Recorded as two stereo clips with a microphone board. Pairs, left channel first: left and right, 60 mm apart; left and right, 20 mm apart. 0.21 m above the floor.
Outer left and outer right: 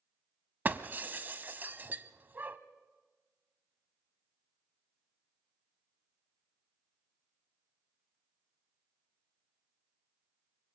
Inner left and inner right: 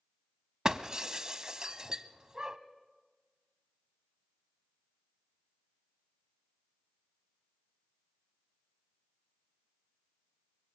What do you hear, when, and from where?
0.7 s breaking glass: 30° right (ahead or behind), 0.6 m